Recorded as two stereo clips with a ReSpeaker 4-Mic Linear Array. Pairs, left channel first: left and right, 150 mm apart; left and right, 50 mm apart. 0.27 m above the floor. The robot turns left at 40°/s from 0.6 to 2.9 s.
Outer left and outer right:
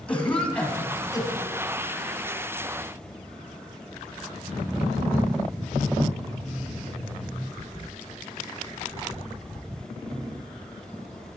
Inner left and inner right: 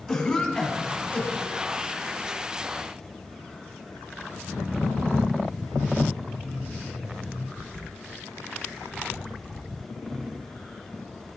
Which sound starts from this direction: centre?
A cough, at 0.1 s.